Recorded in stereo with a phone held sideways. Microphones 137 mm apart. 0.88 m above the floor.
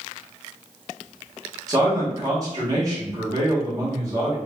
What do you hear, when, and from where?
1.7 s a man speaking: 25° right (ahead or behind), 1.0 m